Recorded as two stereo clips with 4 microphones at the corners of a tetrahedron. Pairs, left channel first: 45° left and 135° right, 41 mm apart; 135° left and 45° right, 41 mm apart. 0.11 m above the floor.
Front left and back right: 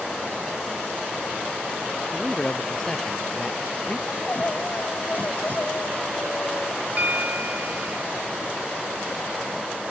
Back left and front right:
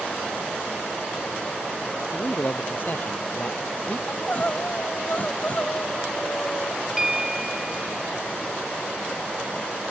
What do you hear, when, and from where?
2.1 s a man speaking: 115° left
4.1 s crying: 85° left
7.0 s a bell: 120° right